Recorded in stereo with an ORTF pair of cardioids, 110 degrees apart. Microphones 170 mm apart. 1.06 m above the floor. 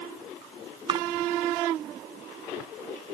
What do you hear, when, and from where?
0.9 s a splash: 30° right